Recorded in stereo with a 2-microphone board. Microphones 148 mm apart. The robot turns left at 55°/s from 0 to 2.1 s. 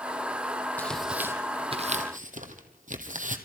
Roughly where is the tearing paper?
Centre.